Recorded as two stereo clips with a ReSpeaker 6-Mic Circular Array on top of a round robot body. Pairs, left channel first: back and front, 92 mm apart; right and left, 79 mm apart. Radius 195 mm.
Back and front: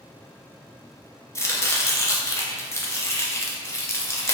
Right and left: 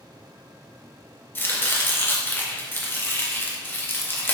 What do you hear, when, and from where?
1.4 s chopping: 140° right, 0.8 m